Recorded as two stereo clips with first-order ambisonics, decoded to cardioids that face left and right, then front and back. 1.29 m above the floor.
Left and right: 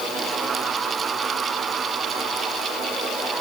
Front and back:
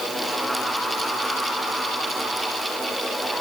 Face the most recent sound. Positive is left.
No sound to turn to.